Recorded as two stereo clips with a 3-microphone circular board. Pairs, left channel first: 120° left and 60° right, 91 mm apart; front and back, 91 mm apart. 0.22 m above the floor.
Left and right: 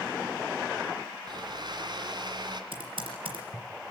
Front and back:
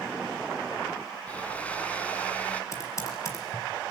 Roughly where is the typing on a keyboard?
Ahead right.